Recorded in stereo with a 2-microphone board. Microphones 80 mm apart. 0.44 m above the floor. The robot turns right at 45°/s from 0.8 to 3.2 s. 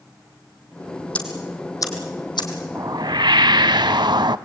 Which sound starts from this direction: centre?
Ticking, at 1.1 s.